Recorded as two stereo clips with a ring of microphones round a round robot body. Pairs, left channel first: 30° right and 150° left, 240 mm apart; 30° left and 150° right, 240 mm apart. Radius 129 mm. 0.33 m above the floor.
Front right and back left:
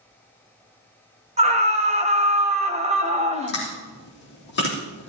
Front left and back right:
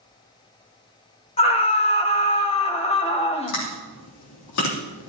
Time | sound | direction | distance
1.4 | a scream | 90° left | 1.4 m
3.5 | chewing | 15° left | 3.5 m